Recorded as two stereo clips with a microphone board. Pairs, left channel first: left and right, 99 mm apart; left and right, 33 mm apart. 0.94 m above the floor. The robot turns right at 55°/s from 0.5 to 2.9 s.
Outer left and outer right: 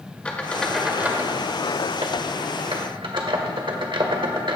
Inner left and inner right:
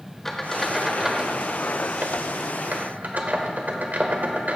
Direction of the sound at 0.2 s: 15° left (ahead or behind).